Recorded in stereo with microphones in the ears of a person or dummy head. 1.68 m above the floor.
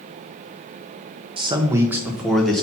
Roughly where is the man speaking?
Right.